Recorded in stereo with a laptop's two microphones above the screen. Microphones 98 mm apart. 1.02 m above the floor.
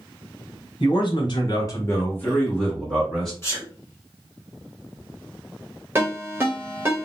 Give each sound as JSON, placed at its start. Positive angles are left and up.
{"t": 0.8, "sound": "a man speaking", "side_deg": 50, "distance_m": 0.9}
{"t": 3.4, "sound": "a sneeze", "side_deg": 30, "distance_m": 0.7}
{"t": 6.0, "sound": "a ringtone", "side_deg": -25, "distance_m": 0.9}